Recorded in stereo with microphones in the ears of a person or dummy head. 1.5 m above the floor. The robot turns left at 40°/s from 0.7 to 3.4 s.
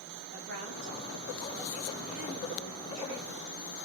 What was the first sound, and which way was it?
A woman speaking, 125° right.